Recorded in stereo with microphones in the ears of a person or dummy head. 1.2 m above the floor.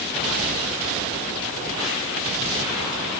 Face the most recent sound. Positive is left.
No sound to turn to.